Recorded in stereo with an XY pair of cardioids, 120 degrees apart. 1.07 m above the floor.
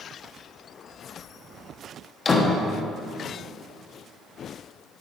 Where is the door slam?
30° left, 1.0 m.